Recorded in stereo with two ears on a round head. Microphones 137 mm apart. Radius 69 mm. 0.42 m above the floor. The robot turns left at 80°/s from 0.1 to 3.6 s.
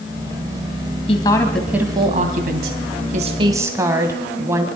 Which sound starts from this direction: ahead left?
A woman speaking, at 1.1 s.